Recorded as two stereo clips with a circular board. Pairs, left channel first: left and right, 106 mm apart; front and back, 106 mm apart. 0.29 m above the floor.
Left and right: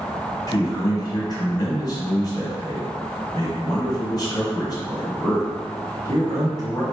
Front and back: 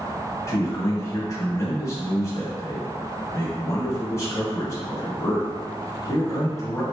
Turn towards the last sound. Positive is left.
turn(degrees=55)